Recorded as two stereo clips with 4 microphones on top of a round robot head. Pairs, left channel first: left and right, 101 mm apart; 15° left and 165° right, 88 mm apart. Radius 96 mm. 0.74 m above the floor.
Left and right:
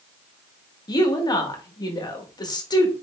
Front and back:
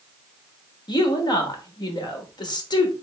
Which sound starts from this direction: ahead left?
A woman speaking, at 0.9 s.